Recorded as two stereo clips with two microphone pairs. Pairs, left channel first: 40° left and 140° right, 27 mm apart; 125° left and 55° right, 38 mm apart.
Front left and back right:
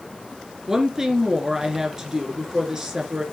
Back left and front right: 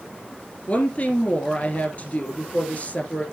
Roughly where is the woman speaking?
Behind left.